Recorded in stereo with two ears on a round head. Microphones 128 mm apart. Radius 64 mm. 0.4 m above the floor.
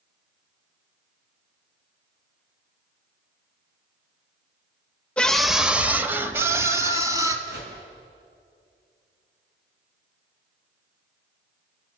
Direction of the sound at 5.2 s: 10° left (ahead or behind).